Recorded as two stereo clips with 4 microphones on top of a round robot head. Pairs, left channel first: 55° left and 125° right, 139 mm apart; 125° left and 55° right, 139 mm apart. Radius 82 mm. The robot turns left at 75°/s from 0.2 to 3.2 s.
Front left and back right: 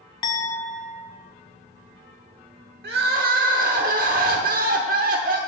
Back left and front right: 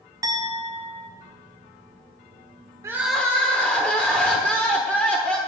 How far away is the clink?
About 0.6 m.